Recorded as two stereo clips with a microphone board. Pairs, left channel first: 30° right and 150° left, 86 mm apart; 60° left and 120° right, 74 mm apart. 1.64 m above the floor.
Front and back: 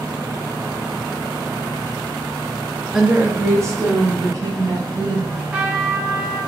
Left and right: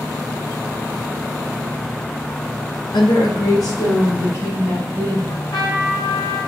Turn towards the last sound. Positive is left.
turn(degrees=75)